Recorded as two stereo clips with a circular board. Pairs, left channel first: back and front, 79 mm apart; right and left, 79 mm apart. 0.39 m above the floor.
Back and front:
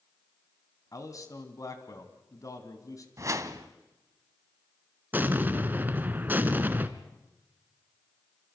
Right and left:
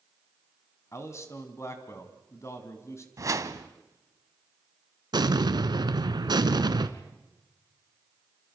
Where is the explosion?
65° left, 1.1 m.